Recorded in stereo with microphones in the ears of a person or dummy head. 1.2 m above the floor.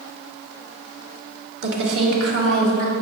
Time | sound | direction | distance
1.6 | a woman speaking | 60° right (ahead or behind) | 2 m